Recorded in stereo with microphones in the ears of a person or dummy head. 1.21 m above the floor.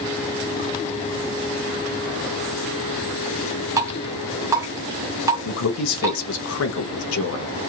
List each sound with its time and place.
3.8 s dripping: 20° right (ahead or behind), 0.9 m
5.5 s a man speaking: 75° left (ahead or behind), 0.7 m